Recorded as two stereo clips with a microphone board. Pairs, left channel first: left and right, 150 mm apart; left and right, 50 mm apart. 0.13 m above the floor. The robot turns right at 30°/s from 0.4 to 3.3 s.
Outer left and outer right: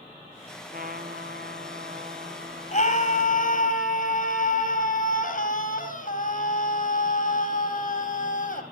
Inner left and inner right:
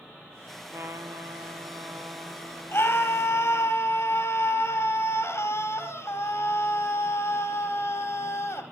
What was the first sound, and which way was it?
A trumpet, 105° right.